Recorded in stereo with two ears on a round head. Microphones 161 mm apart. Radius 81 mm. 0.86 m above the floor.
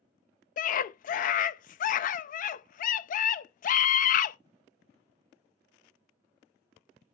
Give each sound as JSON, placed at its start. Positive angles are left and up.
{"t": 0.6, "sound": "a scream", "side_deg": 50, "distance_m": 0.5}